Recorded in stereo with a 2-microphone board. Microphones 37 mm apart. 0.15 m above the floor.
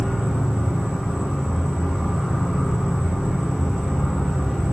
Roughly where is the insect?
Right.